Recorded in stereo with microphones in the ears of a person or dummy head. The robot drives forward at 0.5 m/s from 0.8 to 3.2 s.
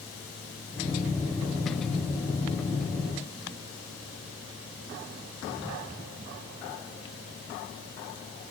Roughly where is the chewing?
I don't hear chewing.